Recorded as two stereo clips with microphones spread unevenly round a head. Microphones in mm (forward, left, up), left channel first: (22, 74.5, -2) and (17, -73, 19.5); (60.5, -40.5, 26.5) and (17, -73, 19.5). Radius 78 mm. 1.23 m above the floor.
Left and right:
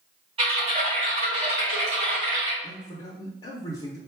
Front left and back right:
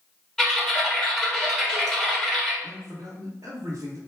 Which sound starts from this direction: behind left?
A man speaking, at 2.6 s.